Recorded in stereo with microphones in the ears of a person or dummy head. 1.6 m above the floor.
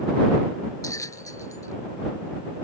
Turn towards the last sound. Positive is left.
turn(degrees=20)  # may be behind; listen again after turning